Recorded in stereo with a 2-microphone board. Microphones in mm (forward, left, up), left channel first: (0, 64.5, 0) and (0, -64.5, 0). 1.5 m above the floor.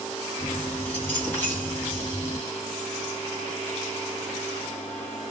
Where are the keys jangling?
15° left (ahead or behind), 1.8 m.